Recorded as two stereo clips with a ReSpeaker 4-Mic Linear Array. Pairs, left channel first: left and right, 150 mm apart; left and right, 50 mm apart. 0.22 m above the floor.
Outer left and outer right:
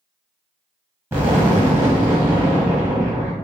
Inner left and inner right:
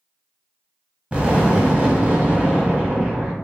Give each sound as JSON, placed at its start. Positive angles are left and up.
{"t": 1.1, "sound": "an explosion", "side_deg": -15, "distance_m": 1.2}